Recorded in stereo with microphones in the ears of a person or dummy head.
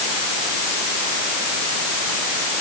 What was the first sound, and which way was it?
Only background noise.